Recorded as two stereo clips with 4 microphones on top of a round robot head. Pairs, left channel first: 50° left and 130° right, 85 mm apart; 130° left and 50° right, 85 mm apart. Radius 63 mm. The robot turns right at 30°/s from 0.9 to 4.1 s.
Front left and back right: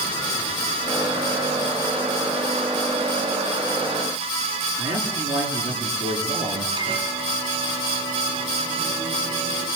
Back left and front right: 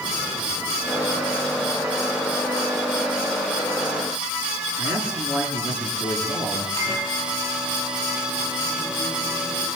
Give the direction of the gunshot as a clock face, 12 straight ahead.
I don't hear a gunshot.